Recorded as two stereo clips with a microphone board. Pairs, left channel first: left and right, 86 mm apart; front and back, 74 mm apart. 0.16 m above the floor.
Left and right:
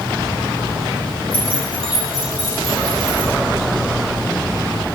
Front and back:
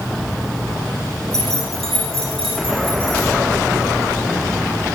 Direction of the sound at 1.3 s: 85° right.